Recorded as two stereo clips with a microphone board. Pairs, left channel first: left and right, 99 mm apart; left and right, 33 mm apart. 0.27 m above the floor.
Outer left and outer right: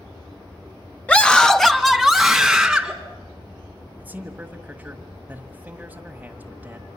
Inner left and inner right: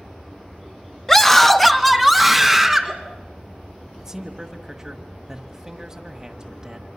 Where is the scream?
15° left (ahead or behind), 1.1 m; by 2.9 s 5° right (ahead or behind), 3 m.